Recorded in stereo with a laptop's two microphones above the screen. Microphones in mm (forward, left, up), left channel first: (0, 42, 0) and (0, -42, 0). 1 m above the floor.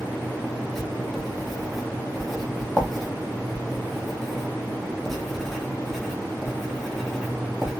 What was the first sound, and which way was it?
Writing, centre (ahead or behind).